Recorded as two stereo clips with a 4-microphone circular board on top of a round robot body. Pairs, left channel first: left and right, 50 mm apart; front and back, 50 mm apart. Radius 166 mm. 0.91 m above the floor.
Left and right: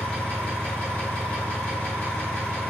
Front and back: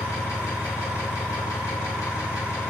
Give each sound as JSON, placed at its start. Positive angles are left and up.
{"t": 0.0, "sound": "an engine running", "azimuth_deg": 20, "distance_m": 0.9}